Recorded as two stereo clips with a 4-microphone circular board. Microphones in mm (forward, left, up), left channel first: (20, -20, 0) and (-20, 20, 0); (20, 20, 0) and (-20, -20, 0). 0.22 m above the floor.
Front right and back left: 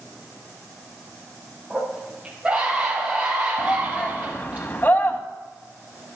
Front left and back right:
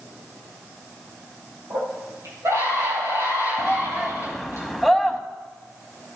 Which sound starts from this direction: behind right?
A scream, at 1.7 s.